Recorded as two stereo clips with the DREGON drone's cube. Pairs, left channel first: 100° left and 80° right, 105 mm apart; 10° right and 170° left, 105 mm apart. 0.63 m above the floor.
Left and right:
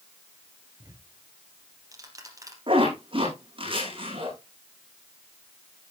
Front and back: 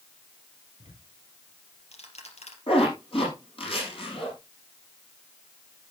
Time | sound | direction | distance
0.8 | ticking | 20° right | 3.5 m
2.7 | a zipper | 45° right | 9.5 m